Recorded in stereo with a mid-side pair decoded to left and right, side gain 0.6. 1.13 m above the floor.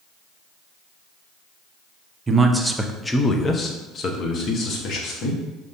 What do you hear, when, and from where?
2.3 s a man speaking: 25° right, 0.6 m; by 5.4 s 55° left, 1.6 m